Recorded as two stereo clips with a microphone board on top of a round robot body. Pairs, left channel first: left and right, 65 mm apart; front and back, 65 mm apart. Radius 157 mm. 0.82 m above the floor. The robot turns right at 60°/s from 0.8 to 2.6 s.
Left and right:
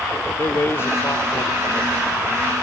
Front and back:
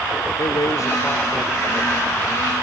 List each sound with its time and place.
0.4 s a man speaking: 35° left; by 1.7 s 90° left